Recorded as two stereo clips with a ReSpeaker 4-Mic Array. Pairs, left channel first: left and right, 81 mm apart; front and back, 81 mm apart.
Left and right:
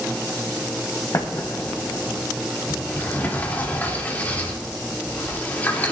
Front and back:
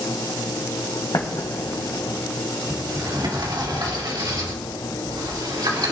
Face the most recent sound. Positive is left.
turn(degrees=160)